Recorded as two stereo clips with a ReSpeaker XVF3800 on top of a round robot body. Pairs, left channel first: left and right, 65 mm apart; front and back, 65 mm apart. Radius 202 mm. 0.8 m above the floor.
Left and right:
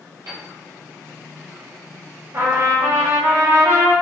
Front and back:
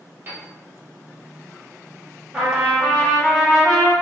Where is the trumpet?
95° right, 1.3 m.